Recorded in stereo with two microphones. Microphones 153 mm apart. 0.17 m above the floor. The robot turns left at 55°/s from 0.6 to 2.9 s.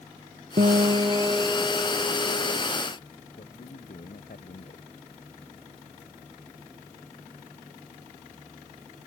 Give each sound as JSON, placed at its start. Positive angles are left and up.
{"t": 0.6, "sound": "a guitar", "azimuth_deg": -125}
{"t": 3.4, "sound": "a man speaking", "side_deg": 65}